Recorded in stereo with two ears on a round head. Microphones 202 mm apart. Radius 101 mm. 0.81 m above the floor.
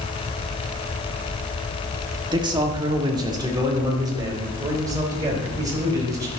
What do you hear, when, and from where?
2.3 s a man speaking: 20° right (ahead or behind), 1.4 m; by 6.3 s 15° right (ahead or behind), 4 m